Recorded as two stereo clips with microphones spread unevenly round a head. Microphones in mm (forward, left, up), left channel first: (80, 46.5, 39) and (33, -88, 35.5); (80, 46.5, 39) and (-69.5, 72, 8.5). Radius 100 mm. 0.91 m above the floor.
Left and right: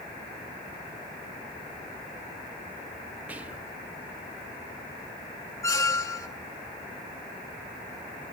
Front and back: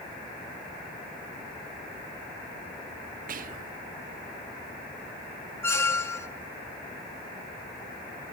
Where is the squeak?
25° left, 0.8 m.